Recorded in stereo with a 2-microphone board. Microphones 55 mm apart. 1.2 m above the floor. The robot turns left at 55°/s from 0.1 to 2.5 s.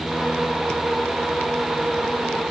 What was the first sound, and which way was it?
Only background noise.